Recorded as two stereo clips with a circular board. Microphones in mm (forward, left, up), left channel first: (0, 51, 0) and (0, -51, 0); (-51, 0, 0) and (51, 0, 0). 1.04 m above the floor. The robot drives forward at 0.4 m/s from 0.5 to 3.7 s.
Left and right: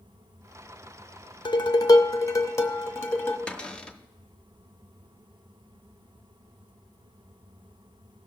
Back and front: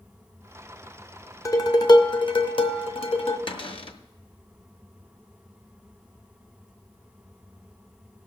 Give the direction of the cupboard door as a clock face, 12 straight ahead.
6 o'clock.